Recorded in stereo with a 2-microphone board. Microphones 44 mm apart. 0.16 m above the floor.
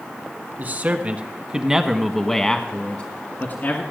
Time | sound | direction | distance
0.6 | a man speaking | 45° right (ahead or behind) | 1.3 m